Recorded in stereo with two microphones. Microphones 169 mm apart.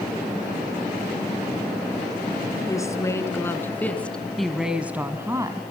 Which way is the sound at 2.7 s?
20° left (ahead or behind).